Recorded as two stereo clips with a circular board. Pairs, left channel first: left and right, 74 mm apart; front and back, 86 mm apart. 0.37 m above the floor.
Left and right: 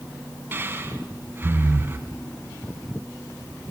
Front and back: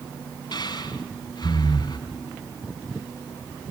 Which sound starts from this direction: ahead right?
Breathing, at 0.5 s.